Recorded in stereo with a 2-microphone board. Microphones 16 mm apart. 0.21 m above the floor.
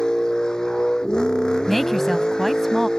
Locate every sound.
0.0 s a vehicle: 60° left (ahead or behind)
1.7 s a woman speaking: 20° left (ahead or behind)